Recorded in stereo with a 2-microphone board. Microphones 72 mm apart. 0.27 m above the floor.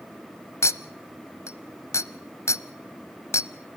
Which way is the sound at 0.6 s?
40° left (ahead or behind).